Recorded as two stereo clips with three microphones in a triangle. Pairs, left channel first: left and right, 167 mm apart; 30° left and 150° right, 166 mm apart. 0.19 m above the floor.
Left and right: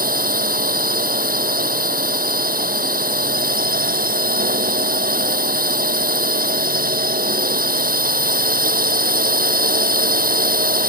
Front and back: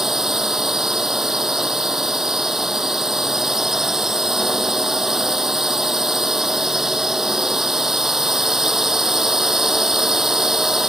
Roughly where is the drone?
Ahead right.